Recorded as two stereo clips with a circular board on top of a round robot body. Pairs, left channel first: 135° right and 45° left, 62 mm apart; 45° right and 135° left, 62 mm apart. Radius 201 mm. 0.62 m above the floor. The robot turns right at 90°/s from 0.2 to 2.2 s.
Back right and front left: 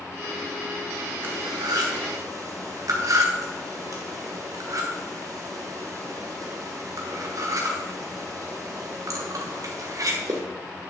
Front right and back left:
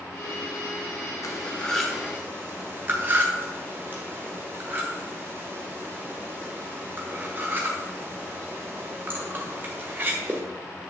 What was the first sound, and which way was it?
Cutlery clinking, 10° right.